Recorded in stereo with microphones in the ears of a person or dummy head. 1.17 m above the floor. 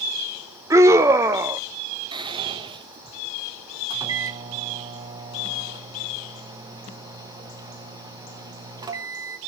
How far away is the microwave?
About 1.4 m.